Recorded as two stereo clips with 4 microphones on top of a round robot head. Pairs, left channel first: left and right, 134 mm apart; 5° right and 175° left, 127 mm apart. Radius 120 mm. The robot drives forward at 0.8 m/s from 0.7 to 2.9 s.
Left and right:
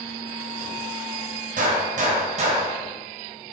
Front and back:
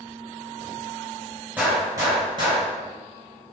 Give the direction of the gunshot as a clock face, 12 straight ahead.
4 o'clock.